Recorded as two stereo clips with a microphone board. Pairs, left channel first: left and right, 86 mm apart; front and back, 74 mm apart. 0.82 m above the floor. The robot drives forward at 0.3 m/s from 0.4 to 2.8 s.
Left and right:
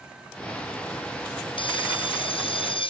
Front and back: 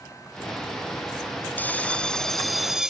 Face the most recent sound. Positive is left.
turn(degrees=100)